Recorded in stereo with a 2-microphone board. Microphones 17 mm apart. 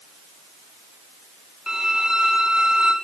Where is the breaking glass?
I don't hear breaking glass.